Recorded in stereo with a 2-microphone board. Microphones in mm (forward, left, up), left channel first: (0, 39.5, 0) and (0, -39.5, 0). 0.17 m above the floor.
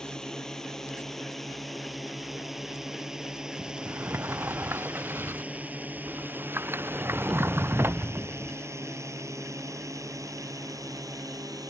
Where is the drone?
10° left (ahead or behind); by 11.7 s 55° right (ahead or behind).